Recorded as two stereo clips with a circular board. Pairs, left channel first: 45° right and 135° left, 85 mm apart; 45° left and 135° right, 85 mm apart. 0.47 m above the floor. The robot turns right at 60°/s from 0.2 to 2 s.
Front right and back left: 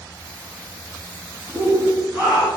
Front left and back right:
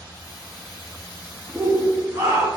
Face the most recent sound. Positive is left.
turn(degrees=-165)